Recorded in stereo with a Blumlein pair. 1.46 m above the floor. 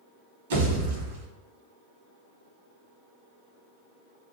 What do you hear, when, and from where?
0.5 s a pop: 55° right, 1.0 m